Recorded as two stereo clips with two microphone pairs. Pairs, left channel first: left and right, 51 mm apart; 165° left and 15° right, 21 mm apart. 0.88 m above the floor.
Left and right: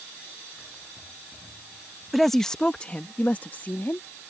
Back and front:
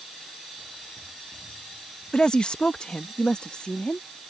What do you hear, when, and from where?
2.1 s a woman speaking: straight behind; by 4.1 s 130° left